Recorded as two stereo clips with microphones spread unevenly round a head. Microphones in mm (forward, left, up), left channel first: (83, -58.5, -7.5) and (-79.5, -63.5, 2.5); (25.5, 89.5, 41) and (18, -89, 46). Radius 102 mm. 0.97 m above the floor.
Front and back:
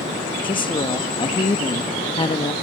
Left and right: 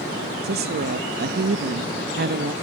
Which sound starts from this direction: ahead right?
A woman speaking, at 0.4 s.